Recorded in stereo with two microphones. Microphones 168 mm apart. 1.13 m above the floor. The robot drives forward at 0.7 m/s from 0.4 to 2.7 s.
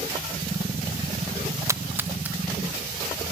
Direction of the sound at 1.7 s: 15° right (ahead or behind).